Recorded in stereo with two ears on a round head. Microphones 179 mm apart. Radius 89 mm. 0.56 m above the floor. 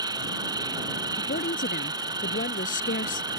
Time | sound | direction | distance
0.0 | an insect | 20° right (ahead or behind) | ?
1.2 | a woman speaking | 40° left (ahead or behind) | ?